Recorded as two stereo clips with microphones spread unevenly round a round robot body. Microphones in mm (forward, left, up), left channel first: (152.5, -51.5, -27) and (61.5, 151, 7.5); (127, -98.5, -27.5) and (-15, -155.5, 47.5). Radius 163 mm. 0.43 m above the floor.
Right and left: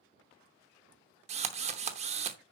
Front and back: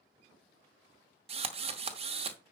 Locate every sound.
1.3 s a drill: 135° left, 0.7 m